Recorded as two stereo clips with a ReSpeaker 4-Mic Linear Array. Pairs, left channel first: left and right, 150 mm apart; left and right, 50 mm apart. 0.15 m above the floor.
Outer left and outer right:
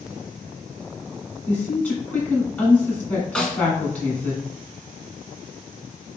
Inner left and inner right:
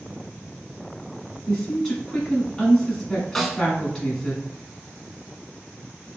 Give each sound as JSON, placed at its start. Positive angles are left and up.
{"t": 1.5, "sound": "a woman speaking", "side_deg": 10, "distance_m": 1.5}
{"t": 3.4, "sound": "a snare drum", "side_deg": 5, "distance_m": 0.7}